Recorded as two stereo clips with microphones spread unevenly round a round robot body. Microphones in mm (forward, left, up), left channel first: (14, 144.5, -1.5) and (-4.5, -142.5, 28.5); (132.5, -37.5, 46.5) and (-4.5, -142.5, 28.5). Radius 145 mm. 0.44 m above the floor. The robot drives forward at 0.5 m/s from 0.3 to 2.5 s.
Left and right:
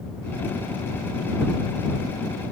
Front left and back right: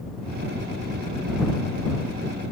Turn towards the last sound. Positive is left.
No sound to turn to.